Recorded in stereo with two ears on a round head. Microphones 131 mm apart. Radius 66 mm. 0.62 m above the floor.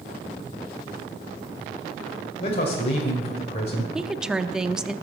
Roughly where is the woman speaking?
Centre.